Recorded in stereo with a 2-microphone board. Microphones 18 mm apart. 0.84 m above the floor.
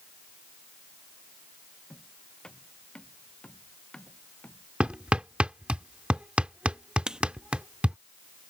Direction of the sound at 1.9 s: 45° left (ahead or behind).